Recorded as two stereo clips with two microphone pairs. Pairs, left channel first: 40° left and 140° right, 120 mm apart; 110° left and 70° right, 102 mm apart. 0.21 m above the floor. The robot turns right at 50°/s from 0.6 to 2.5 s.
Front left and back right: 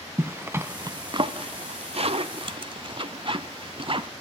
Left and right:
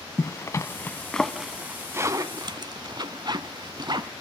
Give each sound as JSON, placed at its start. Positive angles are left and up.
{"t": 0.2, "sound": "a zipper", "azimuth_deg": 160, "distance_m": 0.6}